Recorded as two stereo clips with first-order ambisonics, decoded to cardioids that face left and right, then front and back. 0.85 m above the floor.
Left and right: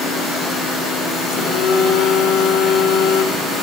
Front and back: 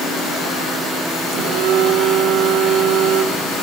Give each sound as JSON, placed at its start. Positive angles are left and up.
{"t": 1.3, "sound": "a phone buzzing", "azimuth_deg": 130, "distance_m": 1.5}